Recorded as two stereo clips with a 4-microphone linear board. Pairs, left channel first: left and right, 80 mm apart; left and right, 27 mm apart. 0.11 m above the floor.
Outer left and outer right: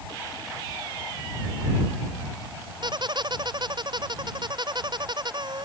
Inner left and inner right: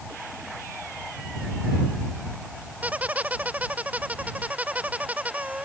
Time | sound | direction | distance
2.8 | a squeak | 75° right (ahead or behind) | ?